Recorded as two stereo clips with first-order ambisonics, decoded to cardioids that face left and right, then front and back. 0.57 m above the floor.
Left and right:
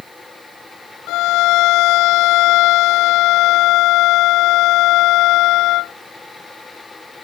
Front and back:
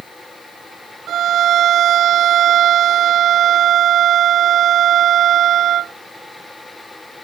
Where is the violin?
125° left.